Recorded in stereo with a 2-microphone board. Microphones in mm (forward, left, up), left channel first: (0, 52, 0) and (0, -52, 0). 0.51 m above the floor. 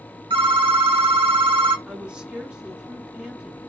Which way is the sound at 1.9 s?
10° right (ahead or behind).